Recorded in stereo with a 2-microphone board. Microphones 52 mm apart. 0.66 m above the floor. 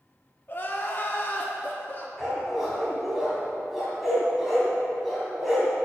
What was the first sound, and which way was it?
Crying, 40° left (ahead or behind).